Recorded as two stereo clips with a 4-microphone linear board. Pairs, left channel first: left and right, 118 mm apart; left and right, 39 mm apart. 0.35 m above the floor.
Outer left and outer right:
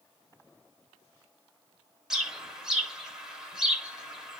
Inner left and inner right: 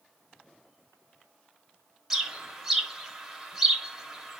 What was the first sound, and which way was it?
A bird, 5° right (ahead or behind).